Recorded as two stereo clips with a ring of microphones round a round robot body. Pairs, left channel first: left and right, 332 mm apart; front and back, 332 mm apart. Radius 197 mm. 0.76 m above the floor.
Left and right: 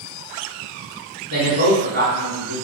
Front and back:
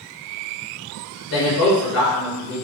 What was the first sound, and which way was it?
A man speaking, 45° right.